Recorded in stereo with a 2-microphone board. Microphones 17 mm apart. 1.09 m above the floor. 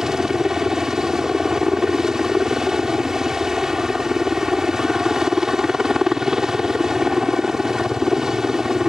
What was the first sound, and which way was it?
A helicopter, 30° right (ahead or behind).